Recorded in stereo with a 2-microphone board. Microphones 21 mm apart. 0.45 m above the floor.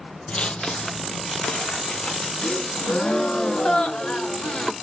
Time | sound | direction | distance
0.3 | footsteps | 55° left (ahead or behind) | 0.6 m
2.4 | a gasp | 65° left (ahead or behind) | 1.0 m